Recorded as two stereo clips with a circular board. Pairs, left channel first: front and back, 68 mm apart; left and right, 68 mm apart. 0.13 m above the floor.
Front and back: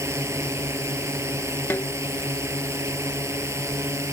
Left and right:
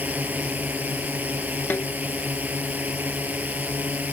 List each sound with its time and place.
0.0 s a drone: 150° right
1.7 s a snare drum: 40° left